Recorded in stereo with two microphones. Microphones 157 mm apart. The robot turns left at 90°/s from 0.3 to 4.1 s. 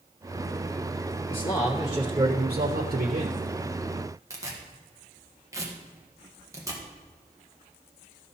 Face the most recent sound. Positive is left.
turn(degrees=-20)  # may be behind; listen again after turning